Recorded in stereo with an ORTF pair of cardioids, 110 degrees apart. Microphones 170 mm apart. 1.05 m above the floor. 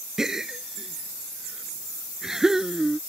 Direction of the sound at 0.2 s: 5° right.